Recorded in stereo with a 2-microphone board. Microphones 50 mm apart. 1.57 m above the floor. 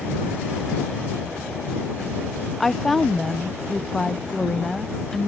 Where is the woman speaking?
5° left (ahead or behind).